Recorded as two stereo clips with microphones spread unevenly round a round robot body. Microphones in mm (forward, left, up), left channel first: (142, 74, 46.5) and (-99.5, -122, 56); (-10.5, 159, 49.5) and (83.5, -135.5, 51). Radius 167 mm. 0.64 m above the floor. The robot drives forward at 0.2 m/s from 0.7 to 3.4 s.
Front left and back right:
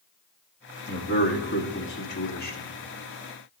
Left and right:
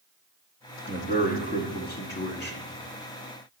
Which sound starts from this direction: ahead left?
A man speaking, at 0.9 s.